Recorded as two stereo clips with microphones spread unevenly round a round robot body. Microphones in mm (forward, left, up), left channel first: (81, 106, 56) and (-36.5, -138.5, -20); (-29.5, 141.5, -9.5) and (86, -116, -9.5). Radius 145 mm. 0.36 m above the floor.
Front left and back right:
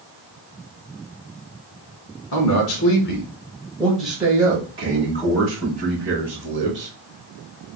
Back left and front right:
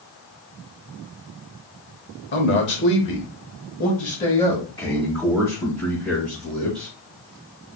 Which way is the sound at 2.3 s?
80° left.